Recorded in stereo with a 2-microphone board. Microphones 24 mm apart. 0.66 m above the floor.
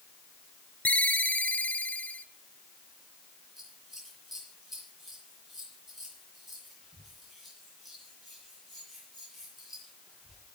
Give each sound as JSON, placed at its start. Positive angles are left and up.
{"t": 0.8, "sound": "a ringtone", "side_deg": 75, "distance_m": 0.8}
{"t": 3.6, "sound": "scissors", "side_deg": -10, "distance_m": 7.0}